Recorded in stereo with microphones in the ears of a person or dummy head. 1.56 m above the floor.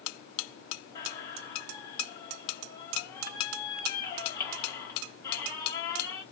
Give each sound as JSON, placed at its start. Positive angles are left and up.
{"t": 0.9, "sound": "a squeak", "side_deg": 10, "distance_m": 0.9}